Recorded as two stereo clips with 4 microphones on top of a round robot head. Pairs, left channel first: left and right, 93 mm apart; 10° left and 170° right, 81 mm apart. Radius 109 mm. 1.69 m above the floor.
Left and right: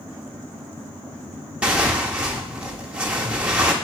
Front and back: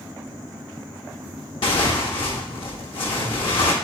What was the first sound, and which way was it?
Tearing paper, 10° right.